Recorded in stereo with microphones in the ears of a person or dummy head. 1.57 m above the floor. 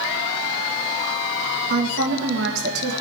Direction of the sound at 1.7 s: 75° right (ahead or behind).